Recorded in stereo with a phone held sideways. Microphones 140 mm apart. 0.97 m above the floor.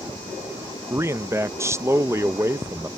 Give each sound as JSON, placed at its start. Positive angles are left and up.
{"t": 0.9, "sound": "a man speaking", "side_deg": -15}